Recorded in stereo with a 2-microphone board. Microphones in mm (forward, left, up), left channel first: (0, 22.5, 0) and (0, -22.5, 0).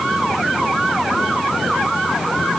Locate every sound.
Only background noise.